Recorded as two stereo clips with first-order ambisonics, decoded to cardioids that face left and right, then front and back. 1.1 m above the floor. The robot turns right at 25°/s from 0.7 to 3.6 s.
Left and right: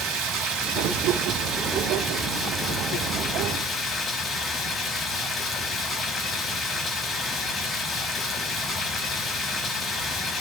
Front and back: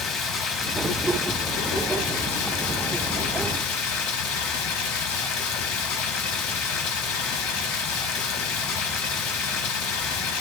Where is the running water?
55° right, 0.9 m; by 10.4 s 20° left, 0.9 m.